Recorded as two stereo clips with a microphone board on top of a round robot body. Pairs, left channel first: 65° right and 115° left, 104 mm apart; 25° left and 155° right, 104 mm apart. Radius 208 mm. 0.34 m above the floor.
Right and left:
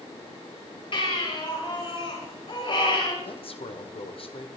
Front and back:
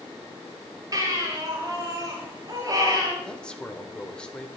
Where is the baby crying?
100° right, 10 m.